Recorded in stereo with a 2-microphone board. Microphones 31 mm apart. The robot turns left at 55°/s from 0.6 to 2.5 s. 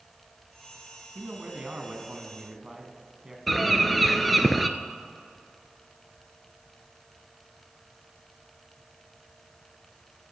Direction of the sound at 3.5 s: Centre (ahead or behind).